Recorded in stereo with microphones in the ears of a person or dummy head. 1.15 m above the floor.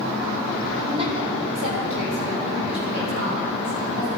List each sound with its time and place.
0.9 s a woman speaking: 35° right (ahead or behind), 2.5 m; by 4.1 s 50° right (ahead or behind), 7.5 m